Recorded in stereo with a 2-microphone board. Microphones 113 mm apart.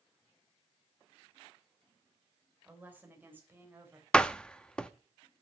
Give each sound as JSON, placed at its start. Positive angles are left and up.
{"t": 2.6, "sound": "a woman speaking", "side_deg": -15, "distance_m": 2.5}
{"t": 4.1, "sound": "a door slam", "side_deg": 5, "distance_m": 0.6}